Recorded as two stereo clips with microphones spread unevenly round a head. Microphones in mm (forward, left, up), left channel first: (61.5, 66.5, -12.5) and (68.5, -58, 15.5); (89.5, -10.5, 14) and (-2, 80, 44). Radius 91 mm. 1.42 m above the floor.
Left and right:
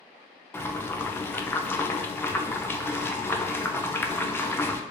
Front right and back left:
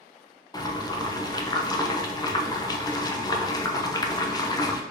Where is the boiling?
20° left, 0.6 m.